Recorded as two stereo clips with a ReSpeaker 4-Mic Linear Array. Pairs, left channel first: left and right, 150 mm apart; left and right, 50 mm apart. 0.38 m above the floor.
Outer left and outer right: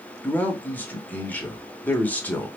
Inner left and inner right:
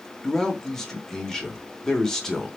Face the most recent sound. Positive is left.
turn(degrees=10)  # may be behind; listen again after turning